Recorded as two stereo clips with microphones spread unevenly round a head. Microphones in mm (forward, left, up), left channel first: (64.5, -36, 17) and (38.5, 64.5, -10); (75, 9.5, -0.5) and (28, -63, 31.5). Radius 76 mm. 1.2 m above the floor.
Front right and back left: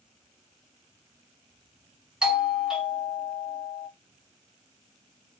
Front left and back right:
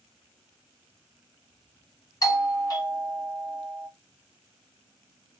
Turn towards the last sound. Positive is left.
turn(degrees=30)